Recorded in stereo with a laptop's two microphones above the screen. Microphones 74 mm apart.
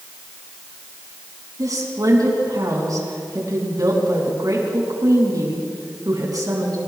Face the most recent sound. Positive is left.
turn(degrees=-55)  # may be behind; listen again after turning